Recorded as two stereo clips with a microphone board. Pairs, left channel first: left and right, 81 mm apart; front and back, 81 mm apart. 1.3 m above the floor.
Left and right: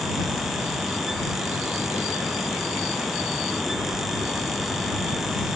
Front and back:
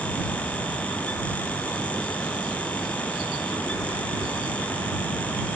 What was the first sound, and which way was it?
Only background noise.